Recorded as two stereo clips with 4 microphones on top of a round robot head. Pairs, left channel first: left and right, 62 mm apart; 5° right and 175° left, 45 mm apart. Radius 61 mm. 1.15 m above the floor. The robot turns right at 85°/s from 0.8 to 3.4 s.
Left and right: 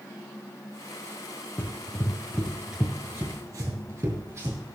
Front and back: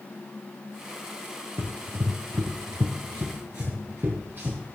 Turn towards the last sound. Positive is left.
turn(degrees=-135)